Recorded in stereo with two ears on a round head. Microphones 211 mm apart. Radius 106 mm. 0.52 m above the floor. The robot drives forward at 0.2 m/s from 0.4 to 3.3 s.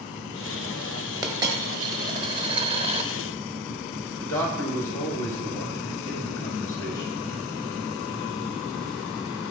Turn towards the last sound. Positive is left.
turn(degrees=10)  # may be behind; listen again after turning